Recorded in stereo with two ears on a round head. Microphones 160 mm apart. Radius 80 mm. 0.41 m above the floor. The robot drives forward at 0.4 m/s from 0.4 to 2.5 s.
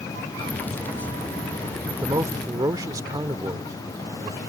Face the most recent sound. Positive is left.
turn(degrees=-20)  # may be behind; listen again after turning